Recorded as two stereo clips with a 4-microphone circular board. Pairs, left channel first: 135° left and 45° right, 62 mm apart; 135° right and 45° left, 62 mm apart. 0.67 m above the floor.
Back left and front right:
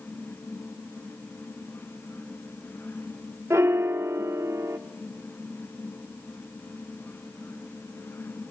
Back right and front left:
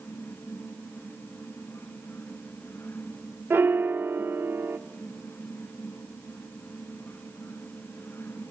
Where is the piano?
5° right, 0.8 m.